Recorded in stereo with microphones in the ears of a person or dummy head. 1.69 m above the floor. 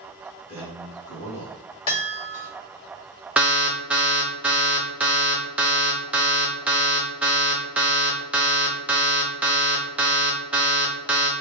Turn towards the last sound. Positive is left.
turn(degrees=-5)  # may be behind; listen again after turning